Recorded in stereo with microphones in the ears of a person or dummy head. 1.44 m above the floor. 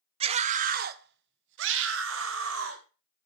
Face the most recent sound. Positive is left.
turn(degrees=-85)